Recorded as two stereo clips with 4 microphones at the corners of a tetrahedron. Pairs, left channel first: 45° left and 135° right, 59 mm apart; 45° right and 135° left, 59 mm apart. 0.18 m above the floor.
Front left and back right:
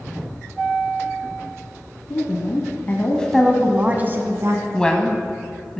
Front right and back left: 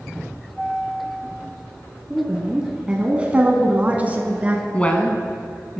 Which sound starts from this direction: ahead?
A woman speaking, at 4.7 s.